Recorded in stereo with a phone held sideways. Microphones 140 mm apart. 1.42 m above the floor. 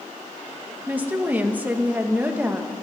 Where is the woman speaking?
15° right (ahead or behind), 1.3 m.